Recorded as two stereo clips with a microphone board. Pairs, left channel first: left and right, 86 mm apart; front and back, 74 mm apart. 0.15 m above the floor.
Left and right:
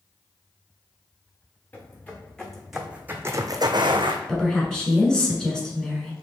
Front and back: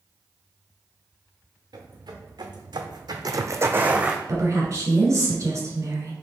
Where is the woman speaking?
170° left, 1.4 m.